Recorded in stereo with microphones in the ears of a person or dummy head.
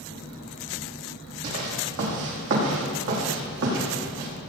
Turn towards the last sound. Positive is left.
turn(degrees=-70)  # may be behind; listen again after turning